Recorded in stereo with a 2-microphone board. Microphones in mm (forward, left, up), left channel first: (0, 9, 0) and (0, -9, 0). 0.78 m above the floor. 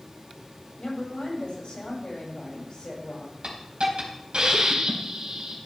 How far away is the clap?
No clap in this recording.